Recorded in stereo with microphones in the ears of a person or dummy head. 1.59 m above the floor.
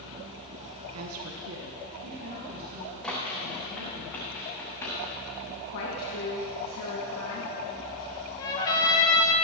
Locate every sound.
0.9 s a woman speaking: 80° right, 1.0 m; by 4.0 s 45° right (ahead or behind), 3.5 m
3.0 s running footsteps: centre (ahead or behind), 5 m; by 5.0 s 15° left (ahead or behind), 5 m
5.7 s a woman speaking: 60° left (ahead or behind), 1.8 m
8.4 s a trumpet: 25° left (ahead or behind), 1.9 m